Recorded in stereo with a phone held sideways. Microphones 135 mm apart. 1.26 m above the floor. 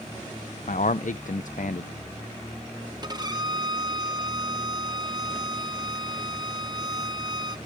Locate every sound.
0.7 s a man speaking: 70° left (ahead or behind), 0.5 m
3.0 s a violin: 30° right (ahead or behind), 0.8 m